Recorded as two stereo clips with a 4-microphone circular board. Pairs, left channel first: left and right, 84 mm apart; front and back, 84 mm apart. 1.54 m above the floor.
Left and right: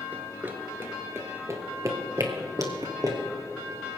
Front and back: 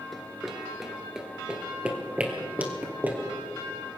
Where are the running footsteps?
85° right, 1.5 m; by 3.2 s 115° right, 2.5 m.